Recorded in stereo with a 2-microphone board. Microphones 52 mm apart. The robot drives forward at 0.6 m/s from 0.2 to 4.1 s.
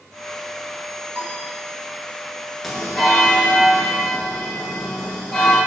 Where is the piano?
45° right (ahead or behind), 1.9 m.